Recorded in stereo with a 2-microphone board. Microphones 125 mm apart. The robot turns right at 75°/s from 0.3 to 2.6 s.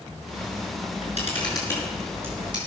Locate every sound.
0.8 s a camera shutter: 75° left (ahead or behind), 5 m; by 2.6 s 40° right (ahead or behind), 5 m